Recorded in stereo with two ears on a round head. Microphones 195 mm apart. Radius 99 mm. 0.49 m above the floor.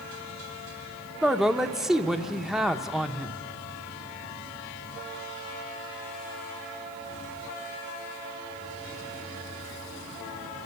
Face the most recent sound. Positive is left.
turn(degrees=0)  # may be behind; listen again after turning